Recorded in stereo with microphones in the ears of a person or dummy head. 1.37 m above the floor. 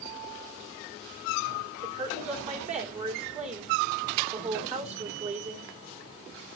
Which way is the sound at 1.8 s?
40° right (ahead or behind).